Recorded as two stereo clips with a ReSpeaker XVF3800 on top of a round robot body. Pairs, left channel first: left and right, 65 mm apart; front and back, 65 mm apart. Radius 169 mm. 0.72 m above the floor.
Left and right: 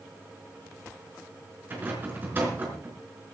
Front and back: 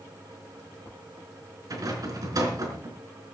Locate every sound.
1.7 s a rattle: 150° right, 4.5 m